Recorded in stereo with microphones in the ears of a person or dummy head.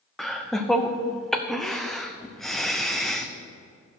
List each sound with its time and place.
0.2 s laughter: centre (ahead or behind), 0.7 m